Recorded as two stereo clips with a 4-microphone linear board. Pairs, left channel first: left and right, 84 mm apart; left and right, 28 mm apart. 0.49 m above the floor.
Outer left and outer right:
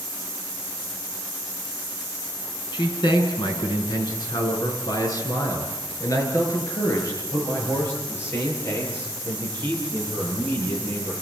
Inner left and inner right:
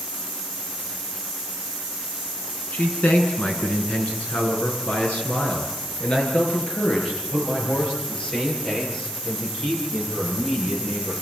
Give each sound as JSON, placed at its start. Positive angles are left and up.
{"t": 2.7, "sound": "a man speaking", "side_deg": 75, "distance_m": 4.5}